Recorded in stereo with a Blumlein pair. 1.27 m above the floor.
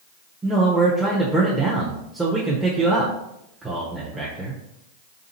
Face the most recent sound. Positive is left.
turn(degrees=-5)